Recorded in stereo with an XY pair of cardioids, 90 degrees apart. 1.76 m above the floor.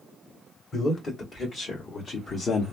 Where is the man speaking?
55° left, 1.8 m; by 2.7 s 65° left, 0.8 m.